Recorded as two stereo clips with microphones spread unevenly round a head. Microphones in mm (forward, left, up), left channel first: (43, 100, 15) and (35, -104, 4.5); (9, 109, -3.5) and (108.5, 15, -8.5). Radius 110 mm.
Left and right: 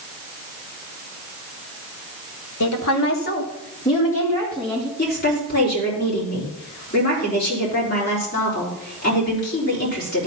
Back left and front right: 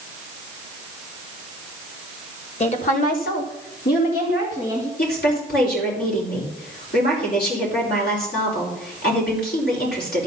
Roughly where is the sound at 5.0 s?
Behind left.